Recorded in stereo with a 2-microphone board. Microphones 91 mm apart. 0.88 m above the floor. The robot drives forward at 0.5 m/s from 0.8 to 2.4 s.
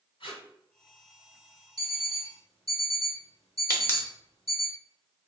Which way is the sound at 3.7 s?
25° left (ahead or behind).